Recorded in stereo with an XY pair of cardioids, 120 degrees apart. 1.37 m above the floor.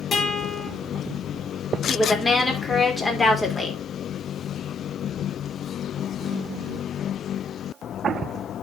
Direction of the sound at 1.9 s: 15° left.